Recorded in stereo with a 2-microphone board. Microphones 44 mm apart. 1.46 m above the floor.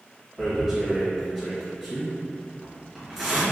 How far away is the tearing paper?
About 1.7 m.